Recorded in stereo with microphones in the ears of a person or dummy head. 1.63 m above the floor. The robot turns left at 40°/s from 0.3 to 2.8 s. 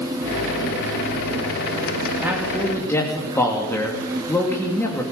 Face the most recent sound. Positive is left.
turn(degrees=15)  # may be behind; listen again after turning